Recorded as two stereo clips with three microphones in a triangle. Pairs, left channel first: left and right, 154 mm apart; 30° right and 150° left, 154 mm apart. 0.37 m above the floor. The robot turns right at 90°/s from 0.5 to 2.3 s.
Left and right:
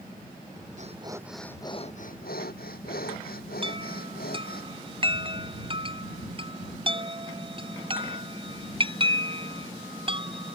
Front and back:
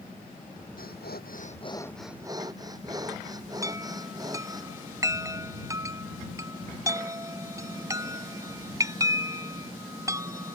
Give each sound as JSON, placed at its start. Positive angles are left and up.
{"t": 0.8, "sound": "breathing", "azimuth_deg": -55}
{"t": 3.6, "sound": "a chime", "azimuth_deg": -140}